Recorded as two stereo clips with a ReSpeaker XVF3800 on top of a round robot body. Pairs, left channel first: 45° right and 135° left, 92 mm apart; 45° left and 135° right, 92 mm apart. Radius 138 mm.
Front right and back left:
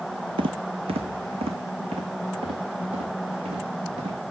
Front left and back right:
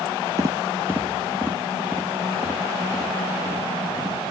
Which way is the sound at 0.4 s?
165° left.